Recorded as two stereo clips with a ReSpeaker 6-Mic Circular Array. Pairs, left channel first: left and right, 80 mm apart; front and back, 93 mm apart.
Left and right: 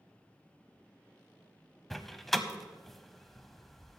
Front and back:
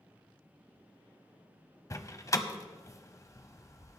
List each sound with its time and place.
1.9 s a door slam: 5° left, 0.8 m